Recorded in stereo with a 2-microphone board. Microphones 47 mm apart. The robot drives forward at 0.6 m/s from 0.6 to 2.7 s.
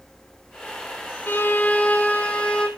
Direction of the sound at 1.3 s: 45° left (ahead or behind).